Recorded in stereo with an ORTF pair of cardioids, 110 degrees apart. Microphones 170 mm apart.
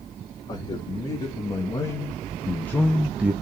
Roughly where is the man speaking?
Ahead left.